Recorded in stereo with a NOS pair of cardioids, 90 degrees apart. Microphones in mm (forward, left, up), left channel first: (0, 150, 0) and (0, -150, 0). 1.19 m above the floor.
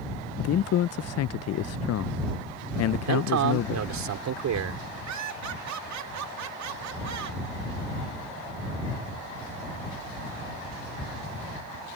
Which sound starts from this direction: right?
Laughter, at 5.1 s.